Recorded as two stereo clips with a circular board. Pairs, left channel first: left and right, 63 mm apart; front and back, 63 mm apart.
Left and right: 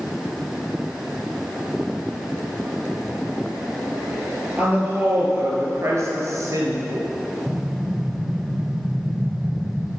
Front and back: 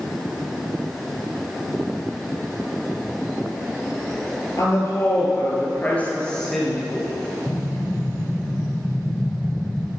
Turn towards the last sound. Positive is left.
turn(degrees=-50)